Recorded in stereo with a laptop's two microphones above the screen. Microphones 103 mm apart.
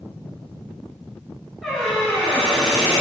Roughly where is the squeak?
Centre.